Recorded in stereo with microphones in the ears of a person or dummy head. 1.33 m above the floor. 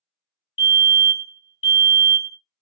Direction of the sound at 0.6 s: 25° left (ahead or behind).